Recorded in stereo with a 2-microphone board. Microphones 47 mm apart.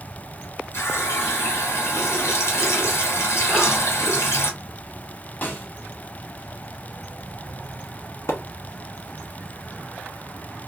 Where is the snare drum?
35° left (ahead or behind), 1.1 m.